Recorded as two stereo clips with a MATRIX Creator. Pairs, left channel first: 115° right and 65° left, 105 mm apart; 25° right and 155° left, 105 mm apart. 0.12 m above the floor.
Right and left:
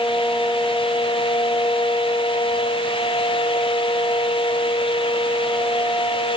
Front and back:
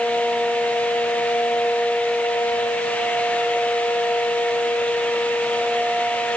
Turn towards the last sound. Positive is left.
No sound to turn to.